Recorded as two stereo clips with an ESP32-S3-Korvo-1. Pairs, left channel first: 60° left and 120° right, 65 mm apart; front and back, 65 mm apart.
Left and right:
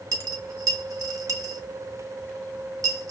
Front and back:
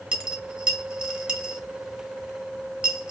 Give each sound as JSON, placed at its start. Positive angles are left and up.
{"t": 0.1, "sound": "a dropped coin", "azimuth_deg": -105, "distance_m": 1.1}